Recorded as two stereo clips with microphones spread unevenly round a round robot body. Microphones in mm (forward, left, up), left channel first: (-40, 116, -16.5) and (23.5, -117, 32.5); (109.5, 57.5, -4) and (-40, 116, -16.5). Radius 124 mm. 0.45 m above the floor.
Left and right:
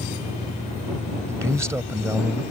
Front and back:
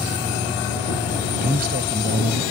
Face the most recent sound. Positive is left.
turn(degrees=-160)